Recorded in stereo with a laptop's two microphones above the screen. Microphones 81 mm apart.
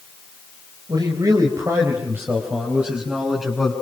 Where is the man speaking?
50° right (ahead or behind), 4 m; by 3.7 s 5° right (ahead or behind), 6 m.